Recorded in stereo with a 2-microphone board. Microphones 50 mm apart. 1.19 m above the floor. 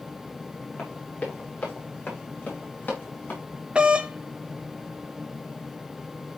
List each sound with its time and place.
0.8 s running footsteps: 20° left (ahead or behind), 8 m; by 3.4 s 35° left (ahead or behind), 8.5 m
3.8 s a doorbell: 20° right (ahead or behind), 0.8 m